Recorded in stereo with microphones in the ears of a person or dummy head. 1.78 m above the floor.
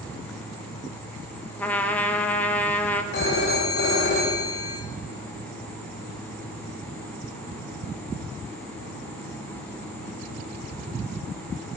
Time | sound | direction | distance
1.6 | a trumpet | 10° left (ahead or behind) | 0.8 m
3.1 | a phone ringing | 70° left (ahead or behind) | 2 m